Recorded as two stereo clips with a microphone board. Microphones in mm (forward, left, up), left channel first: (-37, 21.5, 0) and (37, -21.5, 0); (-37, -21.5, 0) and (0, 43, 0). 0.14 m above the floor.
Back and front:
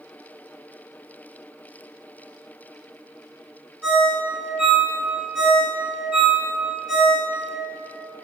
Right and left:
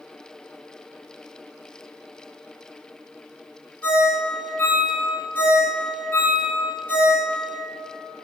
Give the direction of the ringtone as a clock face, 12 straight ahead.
3 o'clock.